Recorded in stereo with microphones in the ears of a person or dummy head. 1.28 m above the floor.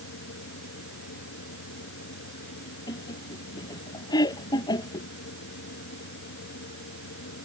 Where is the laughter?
15° left (ahead or behind).